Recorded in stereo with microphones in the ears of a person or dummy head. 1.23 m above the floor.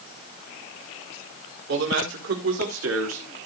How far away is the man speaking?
About 4 m.